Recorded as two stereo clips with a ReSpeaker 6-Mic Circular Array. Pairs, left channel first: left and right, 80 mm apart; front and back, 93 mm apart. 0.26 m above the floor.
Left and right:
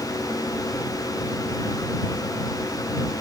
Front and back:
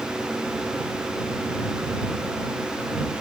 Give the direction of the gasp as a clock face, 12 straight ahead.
No gasp in this recording.